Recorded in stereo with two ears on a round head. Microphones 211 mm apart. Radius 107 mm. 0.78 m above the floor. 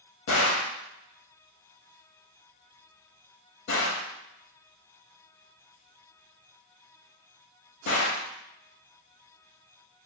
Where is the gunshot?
55° left (ahead or behind), 0.9 m.